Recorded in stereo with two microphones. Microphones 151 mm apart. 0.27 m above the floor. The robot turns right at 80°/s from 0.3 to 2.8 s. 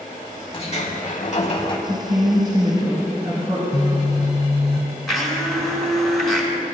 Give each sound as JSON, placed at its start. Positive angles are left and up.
{"t": 0.5, "sound": "a sliding door", "azimuth_deg": 45, "distance_m": 0.8}
{"t": 1.9, "sound": "a woman speaking", "azimuth_deg": -125, "distance_m": 2.5}
{"t": 3.7, "sound": "a phone buzzing", "side_deg": 45, "distance_m": 0.6}
{"t": 5.1, "sound": "a blender", "side_deg": 0, "distance_m": 1.4}